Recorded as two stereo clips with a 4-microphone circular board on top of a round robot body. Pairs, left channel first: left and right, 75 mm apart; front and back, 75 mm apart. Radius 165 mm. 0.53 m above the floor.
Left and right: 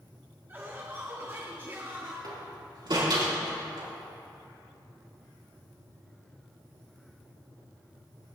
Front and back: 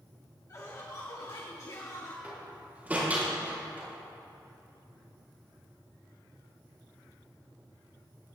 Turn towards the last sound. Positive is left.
turn(degrees=-110)